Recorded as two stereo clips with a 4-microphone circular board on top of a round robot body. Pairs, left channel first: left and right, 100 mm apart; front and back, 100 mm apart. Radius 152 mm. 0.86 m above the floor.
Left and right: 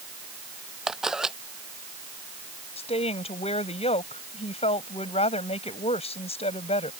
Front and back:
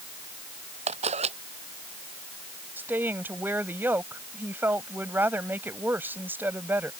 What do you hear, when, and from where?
0.9 s a camera shutter: 175° right
2.8 s a woman speaking: 105° left